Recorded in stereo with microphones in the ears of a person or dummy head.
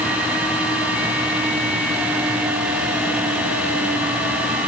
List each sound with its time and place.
Only background noise.